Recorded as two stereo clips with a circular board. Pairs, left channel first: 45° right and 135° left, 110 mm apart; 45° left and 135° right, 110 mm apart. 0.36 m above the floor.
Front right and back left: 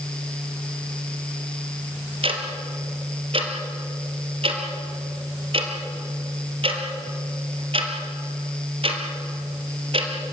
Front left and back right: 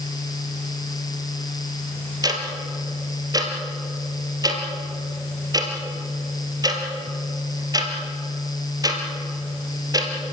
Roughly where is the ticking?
Behind.